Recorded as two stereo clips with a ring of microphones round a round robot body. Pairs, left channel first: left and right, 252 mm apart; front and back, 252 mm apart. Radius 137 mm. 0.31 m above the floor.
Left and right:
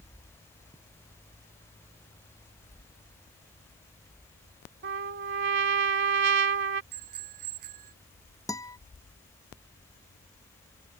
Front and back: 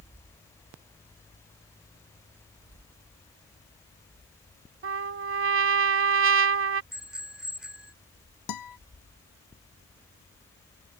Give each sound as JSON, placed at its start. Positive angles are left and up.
{"t": 4.8, "sound": "a trumpet", "azimuth_deg": -140}
{"t": 6.9, "sound": "a bicycle bell", "azimuth_deg": -95}
{"t": 8.5, "sound": "a guitar", "azimuth_deg": 15}